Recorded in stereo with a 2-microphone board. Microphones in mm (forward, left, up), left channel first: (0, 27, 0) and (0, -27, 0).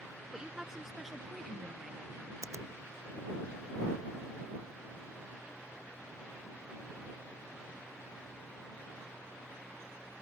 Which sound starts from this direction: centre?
A woman speaking, at 0.3 s.